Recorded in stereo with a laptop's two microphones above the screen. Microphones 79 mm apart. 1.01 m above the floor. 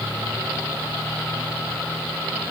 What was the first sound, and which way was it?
Only background noise.